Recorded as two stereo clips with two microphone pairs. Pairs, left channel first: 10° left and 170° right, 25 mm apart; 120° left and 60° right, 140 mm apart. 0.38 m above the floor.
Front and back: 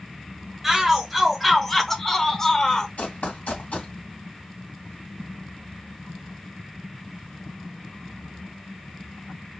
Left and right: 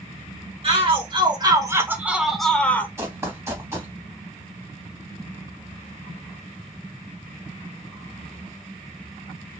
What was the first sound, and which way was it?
A shout, 85° right.